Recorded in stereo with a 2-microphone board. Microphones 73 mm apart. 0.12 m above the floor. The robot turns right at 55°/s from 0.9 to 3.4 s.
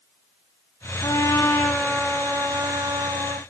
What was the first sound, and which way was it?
A trumpet, 125° left.